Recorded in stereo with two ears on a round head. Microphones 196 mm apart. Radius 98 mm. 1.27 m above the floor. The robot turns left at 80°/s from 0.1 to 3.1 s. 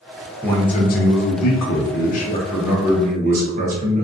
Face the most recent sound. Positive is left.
turn(degrees=-40)